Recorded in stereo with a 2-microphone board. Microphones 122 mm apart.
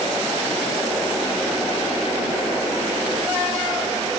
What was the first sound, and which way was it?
Only background noise.